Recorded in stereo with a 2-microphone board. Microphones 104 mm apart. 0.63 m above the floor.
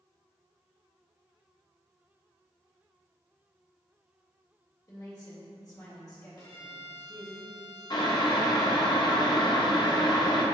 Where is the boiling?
45° left (ahead or behind), 0.6 m.